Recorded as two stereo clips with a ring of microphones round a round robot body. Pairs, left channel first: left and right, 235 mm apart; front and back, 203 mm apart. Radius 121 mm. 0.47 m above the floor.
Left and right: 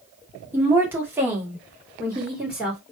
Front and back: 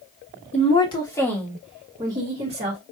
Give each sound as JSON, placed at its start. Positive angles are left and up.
{"t": 0.5, "sound": "a woman speaking", "azimuth_deg": -15, "distance_m": 1.5}